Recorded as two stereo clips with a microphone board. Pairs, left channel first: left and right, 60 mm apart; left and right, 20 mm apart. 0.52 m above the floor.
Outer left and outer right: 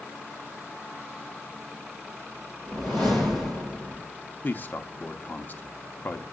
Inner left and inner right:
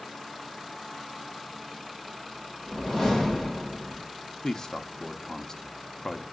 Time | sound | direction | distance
2.7 | a whoosh | 10° left (ahead or behind) | 8.5 m
4.4 | a man speaking | 30° left (ahead or behind) | 0.9 m